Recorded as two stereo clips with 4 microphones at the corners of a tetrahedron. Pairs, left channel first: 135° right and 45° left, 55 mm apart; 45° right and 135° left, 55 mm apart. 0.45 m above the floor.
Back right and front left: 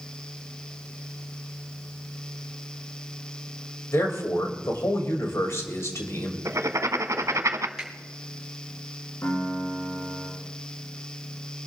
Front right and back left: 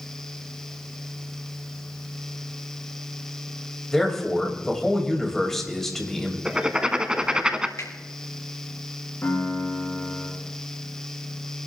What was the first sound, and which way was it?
A man speaking, 125° right.